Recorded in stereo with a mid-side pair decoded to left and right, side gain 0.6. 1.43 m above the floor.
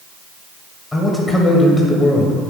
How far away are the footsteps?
I don't hear footsteps.